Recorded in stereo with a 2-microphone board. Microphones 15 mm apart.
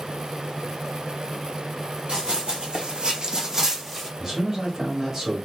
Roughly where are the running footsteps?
Right.